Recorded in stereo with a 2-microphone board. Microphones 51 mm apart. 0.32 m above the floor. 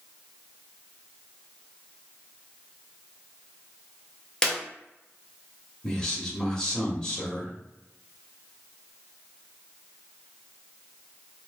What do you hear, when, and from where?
4.4 s a clap: 15° left (ahead or behind), 0.7 m
5.8 s a man speaking: 15° left (ahead or behind), 0.9 m